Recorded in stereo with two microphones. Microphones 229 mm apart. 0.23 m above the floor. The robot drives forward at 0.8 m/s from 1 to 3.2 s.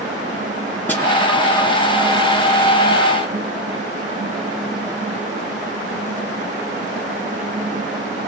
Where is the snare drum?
10° left (ahead or behind), 2 m.